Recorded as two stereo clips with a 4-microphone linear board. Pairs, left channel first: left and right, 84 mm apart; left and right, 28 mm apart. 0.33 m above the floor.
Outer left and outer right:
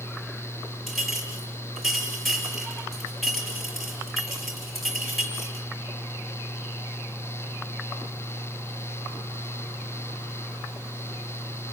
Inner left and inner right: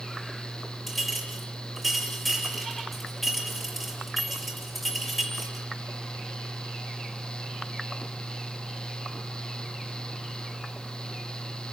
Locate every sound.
0.9 s a clink: centre (ahead or behind), 5 m